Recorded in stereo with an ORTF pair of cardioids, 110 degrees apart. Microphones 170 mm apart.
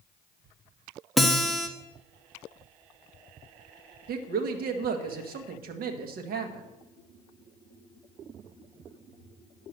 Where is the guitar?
Straight ahead, 1.2 m.